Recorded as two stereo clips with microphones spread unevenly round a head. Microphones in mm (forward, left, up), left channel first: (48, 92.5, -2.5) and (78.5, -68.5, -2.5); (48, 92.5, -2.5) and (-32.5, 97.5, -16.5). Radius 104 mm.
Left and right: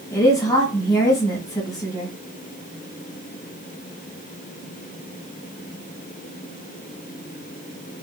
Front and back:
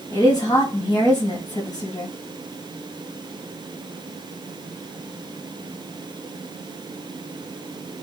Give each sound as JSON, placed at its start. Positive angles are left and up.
{"t": 0.1, "sound": "a woman speaking", "azimuth_deg": 35, "distance_m": 1.4}